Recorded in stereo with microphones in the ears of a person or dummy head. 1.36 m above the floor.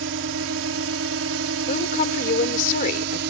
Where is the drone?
70° right (ahead or behind).